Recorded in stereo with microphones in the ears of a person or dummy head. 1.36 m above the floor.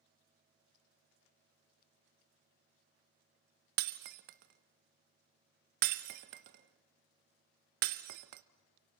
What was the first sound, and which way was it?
Breaking glass, 45° right (ahead or behind).